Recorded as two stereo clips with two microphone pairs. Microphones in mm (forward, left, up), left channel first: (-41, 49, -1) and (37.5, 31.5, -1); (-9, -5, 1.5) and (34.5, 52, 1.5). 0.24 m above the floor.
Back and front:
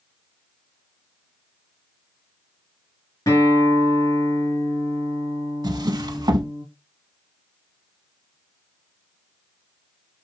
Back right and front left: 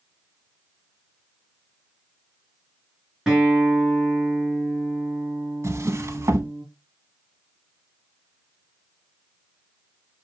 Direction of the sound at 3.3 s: 135° left.